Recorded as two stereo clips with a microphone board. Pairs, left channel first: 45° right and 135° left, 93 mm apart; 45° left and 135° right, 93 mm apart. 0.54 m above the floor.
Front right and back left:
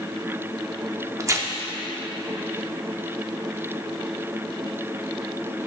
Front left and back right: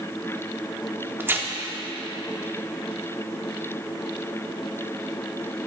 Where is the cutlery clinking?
I don't hear cutlery clinking.